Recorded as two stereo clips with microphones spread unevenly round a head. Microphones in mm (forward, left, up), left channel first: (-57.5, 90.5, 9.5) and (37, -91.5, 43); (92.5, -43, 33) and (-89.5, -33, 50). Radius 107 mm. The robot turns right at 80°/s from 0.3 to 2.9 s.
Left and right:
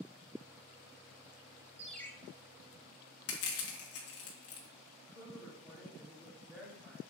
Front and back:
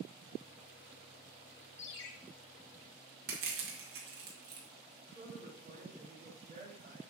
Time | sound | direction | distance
1.8 | a ringtone | 10° left | 0.9 m
3.3 | crushing | 135° left | 2 m
5.1 | a woman speaking | 145° right | 4 m